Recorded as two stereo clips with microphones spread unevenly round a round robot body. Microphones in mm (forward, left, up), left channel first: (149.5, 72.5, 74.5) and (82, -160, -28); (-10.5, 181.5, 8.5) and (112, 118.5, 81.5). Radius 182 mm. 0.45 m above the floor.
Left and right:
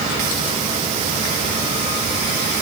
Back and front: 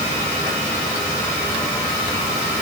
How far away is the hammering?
I don't hear hammering.